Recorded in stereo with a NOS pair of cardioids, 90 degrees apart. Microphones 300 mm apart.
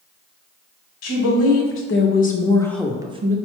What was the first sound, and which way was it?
A woman speaking, 60° left.